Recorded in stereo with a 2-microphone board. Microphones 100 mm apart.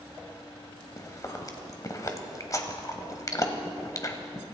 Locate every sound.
1.0 s chewing: 35° left (ahead or behind), 1.4 m